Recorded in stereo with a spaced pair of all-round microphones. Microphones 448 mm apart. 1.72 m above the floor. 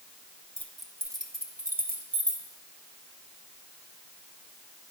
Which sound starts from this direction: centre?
Keys jangling, at 0.6 s.